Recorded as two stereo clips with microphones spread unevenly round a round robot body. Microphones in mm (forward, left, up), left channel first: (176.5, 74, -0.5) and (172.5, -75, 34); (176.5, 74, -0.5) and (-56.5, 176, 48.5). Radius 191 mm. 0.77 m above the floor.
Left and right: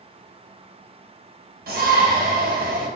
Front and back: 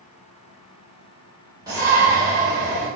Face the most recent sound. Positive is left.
turn(degrees=-120)